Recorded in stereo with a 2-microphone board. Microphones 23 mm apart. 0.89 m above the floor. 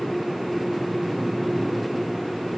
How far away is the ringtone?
No ringtone in this recording.